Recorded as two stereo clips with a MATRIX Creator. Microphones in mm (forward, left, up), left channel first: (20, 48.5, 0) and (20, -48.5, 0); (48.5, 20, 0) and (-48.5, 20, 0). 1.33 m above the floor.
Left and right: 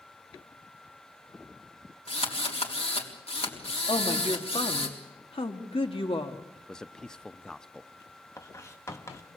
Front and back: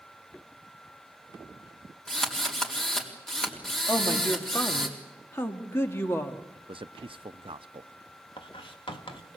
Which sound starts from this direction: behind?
A man speaking, at 6.5 s.